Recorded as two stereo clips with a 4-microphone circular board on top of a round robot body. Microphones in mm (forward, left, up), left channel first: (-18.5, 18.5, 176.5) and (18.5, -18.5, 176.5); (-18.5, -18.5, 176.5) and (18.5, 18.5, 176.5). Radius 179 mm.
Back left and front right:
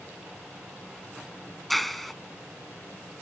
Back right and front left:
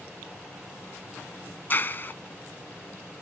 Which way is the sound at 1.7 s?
140° right.